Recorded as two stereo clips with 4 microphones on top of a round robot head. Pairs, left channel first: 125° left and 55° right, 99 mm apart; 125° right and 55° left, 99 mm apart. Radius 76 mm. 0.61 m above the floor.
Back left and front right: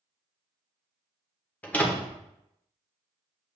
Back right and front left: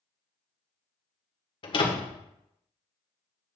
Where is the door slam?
160° right, 1.6 m.